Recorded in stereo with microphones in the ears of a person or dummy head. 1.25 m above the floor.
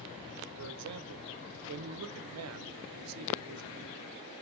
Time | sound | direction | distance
0.6 | a man speaking | 85° right | 0.6 m